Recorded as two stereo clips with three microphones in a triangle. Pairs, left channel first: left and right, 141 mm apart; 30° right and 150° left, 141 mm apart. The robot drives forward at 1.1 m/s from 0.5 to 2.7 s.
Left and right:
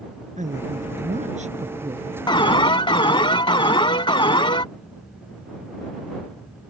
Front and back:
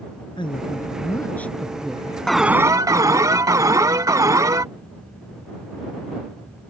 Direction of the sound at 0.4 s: 80° right.